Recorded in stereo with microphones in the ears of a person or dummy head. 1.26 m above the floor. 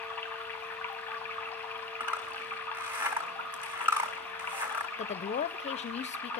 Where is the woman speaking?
35° left (ahead or behind), 0.5 m.